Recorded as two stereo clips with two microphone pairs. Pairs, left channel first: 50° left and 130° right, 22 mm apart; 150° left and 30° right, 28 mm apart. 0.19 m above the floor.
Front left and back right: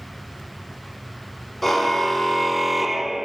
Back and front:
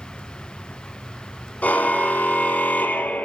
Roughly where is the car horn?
Behind left.